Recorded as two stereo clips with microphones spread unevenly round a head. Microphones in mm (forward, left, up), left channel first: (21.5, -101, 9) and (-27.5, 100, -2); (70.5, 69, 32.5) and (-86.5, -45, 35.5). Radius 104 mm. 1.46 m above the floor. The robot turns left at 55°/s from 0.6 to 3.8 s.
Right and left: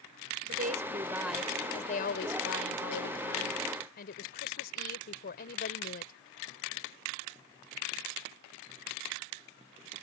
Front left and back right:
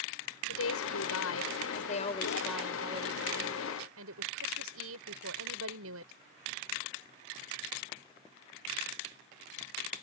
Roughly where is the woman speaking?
Ahead left.